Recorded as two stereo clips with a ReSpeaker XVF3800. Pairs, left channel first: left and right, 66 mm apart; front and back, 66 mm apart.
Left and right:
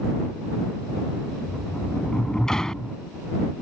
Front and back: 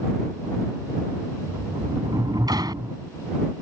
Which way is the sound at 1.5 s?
170° left.